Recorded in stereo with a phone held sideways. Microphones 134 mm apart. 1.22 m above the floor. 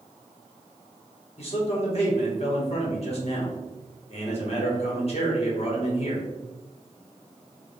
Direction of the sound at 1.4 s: 50° left (ahead or behind).